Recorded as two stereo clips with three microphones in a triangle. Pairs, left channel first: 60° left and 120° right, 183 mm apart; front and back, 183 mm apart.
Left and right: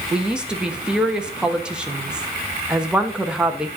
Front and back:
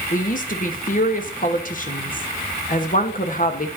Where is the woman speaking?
35° right, 1.1 m.